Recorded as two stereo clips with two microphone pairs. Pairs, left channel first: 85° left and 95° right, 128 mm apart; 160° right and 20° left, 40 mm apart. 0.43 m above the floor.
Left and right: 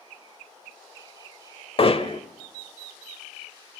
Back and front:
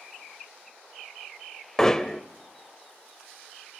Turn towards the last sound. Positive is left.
turn(degrees=125)